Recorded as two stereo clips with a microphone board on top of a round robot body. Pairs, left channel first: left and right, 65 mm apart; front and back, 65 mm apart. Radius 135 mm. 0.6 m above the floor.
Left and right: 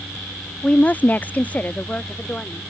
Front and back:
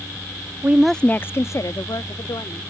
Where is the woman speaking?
150° left; by 2.7 s 20° left.